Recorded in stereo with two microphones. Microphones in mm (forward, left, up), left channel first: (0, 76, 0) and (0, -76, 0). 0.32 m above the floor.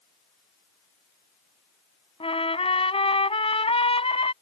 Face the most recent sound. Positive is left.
turn(degrees=40)  # may be behind; listen again after turning